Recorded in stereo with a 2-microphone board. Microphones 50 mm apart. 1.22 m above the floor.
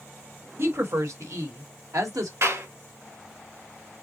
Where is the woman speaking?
50° right (ahead or behind), 1.4 m; by 2.3 s 85° right, 1.8 m.